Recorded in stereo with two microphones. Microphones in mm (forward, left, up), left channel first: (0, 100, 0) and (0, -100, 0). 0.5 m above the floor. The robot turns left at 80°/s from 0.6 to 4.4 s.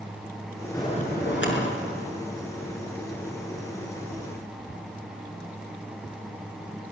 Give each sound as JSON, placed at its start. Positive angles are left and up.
{"t": 0.7, "sound": "a bell", "azimuth_deg": 165, "distance_m": 5.5}